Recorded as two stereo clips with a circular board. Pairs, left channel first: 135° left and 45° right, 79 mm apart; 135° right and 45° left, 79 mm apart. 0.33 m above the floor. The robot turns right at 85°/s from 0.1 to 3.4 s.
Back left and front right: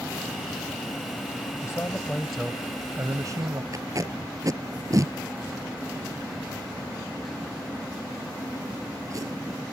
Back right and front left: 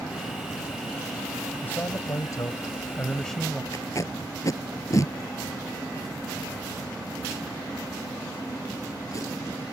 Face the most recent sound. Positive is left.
turn(degrees=-90)